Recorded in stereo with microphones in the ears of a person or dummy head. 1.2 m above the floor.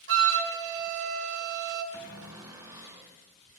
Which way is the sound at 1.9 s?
15° right (ahead or behind).